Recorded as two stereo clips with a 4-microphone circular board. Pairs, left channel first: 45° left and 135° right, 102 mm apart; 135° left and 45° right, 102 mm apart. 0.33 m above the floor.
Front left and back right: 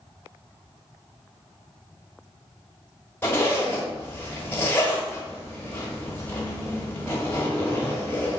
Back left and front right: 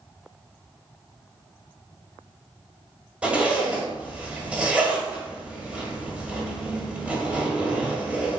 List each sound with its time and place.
3.2 s a zipper: 20° left, 1.2 m